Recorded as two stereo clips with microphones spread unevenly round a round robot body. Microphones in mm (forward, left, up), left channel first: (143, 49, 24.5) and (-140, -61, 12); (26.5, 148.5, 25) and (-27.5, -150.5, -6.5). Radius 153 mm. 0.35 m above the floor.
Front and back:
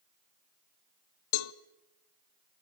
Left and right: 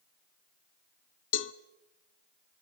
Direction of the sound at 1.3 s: 25° left.